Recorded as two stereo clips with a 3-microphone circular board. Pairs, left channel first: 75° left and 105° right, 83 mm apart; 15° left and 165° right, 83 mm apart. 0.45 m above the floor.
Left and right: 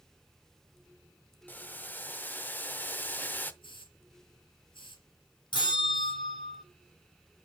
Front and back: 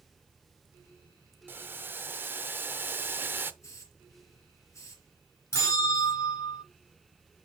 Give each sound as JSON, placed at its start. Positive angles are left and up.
{"t": 1.5, "sound": "boiling", "azimuth_deg": 135, "distance_m": 0.6}
{"t": 3.6, "sound": "a hiss", "azimuth_deg": 70, "distance_m": 4.5}
{"t": 5.5, "sound": "a bell", "azimuth_deg": 65, "distance_m": 4.0}